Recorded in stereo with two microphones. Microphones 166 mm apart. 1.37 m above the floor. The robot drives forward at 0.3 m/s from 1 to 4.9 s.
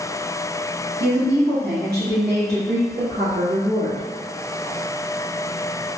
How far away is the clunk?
I don't hear a clunk.